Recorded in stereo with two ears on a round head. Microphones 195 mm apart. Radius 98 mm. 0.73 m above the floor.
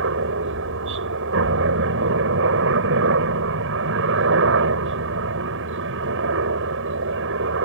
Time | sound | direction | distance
0.0 | a helicopter | 60° right (ahead or behind) | ?